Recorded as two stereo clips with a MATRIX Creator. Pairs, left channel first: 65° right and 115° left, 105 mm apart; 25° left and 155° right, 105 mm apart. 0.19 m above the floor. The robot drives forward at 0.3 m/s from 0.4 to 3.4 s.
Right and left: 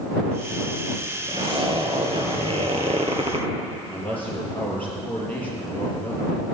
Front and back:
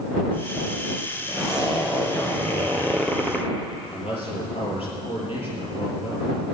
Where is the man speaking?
10° left, 4.5 m.